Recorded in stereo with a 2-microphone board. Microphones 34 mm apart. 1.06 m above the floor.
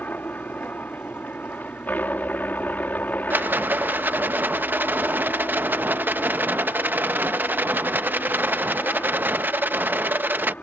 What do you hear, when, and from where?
0.0 s a helicopter: 60° left (ahead or behind)
3.3 s a rattle: 70° right (ahead or behind)